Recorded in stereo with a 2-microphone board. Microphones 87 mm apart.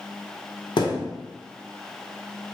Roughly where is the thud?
Left.